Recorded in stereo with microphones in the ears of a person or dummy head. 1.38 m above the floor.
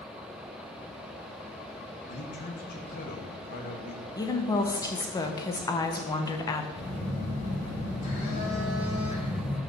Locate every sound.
2.1 s a man speaking: 45° left (ahead or behind), 1.4 m
4.2 s a woman speaking: 15° left (ahead or behind), 0.7 m
6.8 s a phone buzzing: 45° left (ahead or behind), 3 m